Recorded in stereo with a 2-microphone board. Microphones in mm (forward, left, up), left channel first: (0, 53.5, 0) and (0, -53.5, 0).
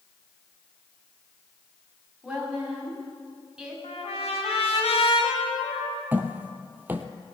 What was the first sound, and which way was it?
A woman speaking, 5° right (ahead or behind).